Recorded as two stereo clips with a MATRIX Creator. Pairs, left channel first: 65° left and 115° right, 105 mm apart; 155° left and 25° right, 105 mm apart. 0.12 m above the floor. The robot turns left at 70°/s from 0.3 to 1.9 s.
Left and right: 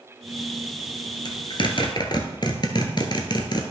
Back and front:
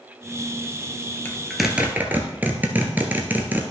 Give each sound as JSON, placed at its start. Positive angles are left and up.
{"t": 1.2, "sound": "a zipper", "azimuth_deg": 90, "distance_m": 1.1}